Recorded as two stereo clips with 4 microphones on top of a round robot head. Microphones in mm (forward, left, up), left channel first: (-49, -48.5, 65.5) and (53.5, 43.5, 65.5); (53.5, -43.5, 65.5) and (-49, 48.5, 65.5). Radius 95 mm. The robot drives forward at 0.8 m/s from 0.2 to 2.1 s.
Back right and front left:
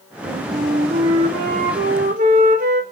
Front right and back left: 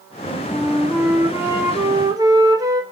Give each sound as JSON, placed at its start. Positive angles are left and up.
{"t": 0.2, "sound": "a flute", "azimuth_deg": 50, "distance_m": 4.5}